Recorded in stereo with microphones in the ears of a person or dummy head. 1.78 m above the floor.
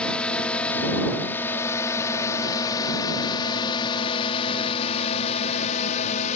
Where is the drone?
5° left (ahead or behind); by 6.4 s 45° left (ahead or behind).